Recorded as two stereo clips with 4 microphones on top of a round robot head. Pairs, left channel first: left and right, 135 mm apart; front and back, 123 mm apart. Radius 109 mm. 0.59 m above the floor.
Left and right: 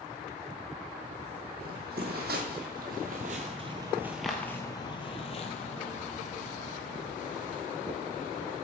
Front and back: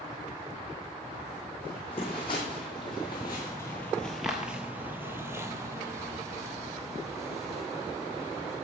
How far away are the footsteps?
About 1.4 m.